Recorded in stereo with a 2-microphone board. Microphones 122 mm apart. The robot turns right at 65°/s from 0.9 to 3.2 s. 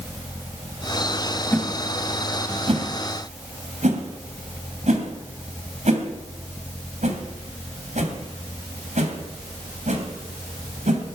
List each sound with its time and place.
1.5 s a whoosh: 20° left (ahead or behind), 2.5 m; by 11.1 s 80° right, 2.5 m